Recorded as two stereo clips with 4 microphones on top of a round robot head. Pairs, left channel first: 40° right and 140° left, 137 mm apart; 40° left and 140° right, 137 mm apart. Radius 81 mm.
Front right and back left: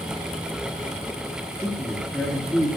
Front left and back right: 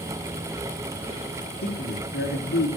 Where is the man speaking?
45° left, 9 m.